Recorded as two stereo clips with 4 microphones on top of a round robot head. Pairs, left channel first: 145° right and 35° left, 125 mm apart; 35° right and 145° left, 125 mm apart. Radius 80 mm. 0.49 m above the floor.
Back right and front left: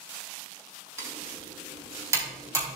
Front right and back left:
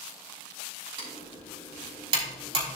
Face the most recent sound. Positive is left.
turn(degrees=100)